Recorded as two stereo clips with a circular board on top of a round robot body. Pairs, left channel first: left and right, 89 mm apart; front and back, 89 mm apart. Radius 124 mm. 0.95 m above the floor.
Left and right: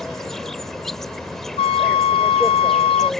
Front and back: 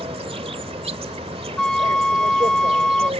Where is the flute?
85° left.